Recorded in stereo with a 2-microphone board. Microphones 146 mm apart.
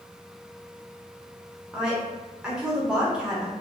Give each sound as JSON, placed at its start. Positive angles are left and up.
{"t": 1.7, "sound": "a woman speaking", "side_deg": -5, "distance_m": 0.8}